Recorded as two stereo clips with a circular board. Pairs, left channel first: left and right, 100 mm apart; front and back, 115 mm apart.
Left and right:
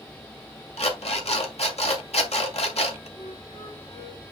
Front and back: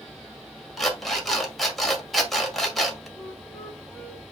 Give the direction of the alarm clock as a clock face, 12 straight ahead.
9 o'clock.